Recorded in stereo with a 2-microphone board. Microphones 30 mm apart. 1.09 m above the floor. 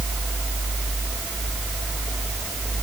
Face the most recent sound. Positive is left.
No sound to turn to.